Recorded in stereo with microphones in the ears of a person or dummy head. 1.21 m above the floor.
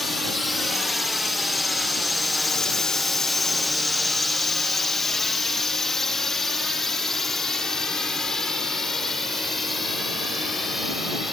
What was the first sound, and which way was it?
A drone, centre (ahead or behind).